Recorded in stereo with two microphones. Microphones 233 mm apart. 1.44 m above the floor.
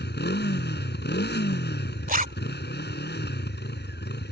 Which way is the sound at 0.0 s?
45° left (ahead or behind).